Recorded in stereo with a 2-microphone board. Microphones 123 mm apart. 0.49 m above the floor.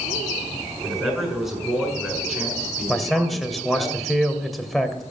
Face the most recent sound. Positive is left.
turn(degrees=0)  # may be behind; listen again after turning